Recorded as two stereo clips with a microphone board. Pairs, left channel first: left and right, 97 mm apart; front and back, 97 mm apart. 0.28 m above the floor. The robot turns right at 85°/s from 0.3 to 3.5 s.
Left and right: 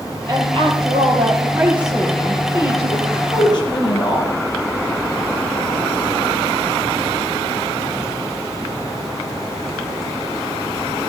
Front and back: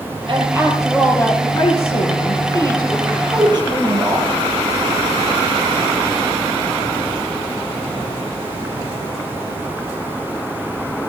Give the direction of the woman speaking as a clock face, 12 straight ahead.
5 o'clock.